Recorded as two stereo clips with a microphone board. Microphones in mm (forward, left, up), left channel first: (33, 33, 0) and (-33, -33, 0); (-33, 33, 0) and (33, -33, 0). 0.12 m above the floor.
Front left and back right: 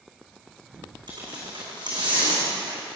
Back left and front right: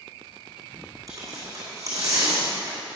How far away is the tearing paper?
About 4 m.